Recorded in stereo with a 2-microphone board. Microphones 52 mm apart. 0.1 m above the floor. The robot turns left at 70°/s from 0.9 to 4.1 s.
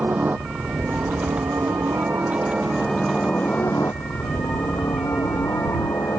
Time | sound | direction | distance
0.0 | a helicopter | 40° right (ahead or behind) | ?